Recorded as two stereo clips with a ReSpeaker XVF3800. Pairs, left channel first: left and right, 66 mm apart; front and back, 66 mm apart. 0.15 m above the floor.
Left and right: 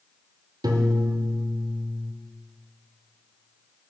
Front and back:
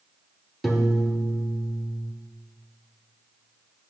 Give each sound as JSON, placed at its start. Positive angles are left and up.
{"t": 0.6, "sound": "a piano", "azimuth_deg": -90, "distance_m": 0.7}